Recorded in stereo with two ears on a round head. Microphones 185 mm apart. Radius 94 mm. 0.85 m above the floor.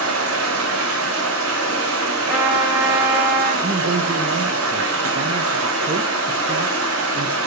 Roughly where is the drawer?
No drawer in this recording.